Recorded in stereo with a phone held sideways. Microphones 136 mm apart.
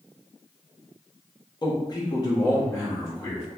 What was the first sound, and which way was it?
A man speaking, 30° left (ahead or behind).